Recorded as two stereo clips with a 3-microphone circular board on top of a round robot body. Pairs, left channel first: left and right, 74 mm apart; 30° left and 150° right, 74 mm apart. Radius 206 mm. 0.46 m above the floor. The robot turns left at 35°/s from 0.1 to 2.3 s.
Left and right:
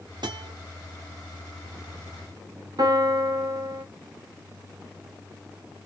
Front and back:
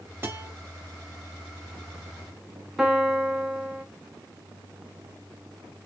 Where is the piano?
70° right, 1.2 m.